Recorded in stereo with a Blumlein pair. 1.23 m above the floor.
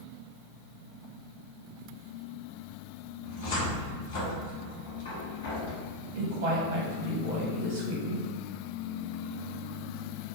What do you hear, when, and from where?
3.2 s a cupboard door: 55° left, 1.3 m
6.2 s a woman speaking: 65° right, 1.4 m